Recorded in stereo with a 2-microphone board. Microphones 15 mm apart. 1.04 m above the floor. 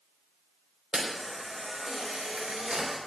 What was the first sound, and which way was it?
A camera shutter, 65° right (ahead or behind).